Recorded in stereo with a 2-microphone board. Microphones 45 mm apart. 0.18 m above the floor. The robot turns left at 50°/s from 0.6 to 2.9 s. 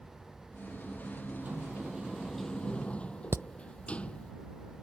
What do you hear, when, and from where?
1.4 s a sliding door: 135° right; by 4.3 s 150° left
3.3 s hammering: 75° right (ahead or behind)